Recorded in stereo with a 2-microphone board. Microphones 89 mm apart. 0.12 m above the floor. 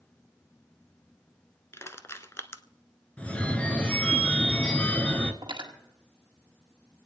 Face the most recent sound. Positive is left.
turn(degrees=-60)  # may be behind; listen again after turning